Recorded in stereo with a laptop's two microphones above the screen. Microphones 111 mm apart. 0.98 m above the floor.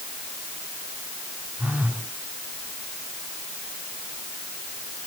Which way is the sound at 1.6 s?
10° right (ahead or behind).